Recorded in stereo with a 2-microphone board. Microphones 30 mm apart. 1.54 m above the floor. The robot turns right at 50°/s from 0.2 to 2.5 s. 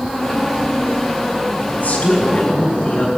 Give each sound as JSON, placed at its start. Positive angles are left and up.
{"t": 1.7, "sound": "a woman speaking", "azimuth_deg": 100, "distance_m": 5.0}